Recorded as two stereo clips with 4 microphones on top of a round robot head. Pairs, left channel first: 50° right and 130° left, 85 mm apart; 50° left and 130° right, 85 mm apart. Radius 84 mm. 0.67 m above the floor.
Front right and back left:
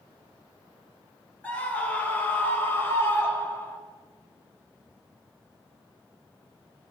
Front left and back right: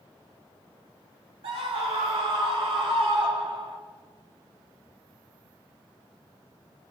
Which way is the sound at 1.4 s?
125° right.